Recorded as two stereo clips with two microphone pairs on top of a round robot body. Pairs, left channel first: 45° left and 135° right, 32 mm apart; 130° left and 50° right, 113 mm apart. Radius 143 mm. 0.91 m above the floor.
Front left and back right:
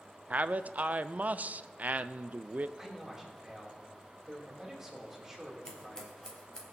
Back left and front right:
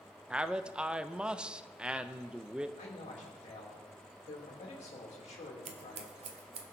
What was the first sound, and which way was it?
A man speaking, 135° right.